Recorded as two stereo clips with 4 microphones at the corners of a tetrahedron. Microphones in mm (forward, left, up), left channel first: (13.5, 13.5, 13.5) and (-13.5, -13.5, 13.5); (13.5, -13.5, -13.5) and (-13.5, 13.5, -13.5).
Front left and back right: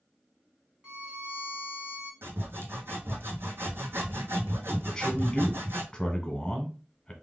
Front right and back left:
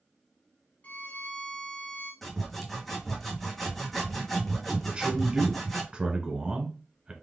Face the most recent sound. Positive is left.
turn(degrees=100)